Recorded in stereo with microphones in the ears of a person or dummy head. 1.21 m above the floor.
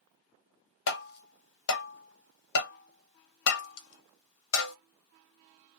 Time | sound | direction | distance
0.9 | tapping | 60° left (ahead or behind) | 0.7 m